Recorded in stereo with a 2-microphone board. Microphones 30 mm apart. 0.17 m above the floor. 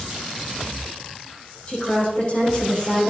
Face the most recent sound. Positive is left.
turn(degrees=40)  # may be behind; listen again after turning